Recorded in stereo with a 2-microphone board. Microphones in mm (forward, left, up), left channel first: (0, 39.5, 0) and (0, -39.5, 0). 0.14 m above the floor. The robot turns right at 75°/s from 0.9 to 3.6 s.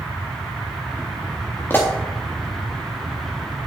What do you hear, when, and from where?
1.7 s a pop: 30° left (ahead or behind), 3.5 m; by 1.9 s 15° left (ahead or behind), 3.5 m